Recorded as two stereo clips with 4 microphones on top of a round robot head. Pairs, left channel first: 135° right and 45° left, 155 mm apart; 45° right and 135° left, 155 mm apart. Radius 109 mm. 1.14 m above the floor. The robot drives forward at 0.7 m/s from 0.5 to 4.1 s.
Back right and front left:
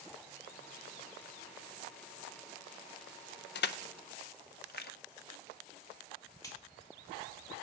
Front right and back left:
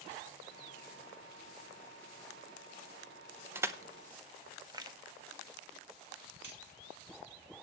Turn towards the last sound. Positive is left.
turn(degrees=155)